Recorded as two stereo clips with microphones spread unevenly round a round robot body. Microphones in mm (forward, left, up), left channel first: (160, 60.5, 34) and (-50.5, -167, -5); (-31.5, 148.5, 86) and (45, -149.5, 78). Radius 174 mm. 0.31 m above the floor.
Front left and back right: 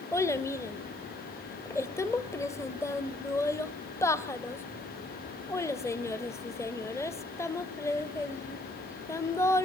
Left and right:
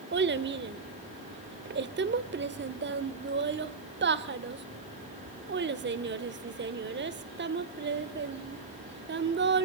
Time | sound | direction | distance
0.1 | a child speaking | 40° right | 0.7 m